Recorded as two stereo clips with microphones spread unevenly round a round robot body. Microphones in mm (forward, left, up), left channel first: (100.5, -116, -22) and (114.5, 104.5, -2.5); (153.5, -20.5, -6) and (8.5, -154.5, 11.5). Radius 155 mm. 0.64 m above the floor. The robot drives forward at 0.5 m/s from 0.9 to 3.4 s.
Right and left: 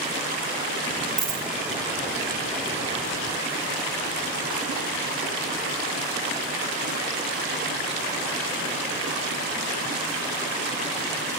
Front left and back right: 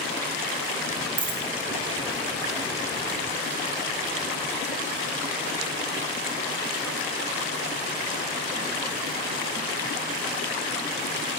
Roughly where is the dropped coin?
Behind.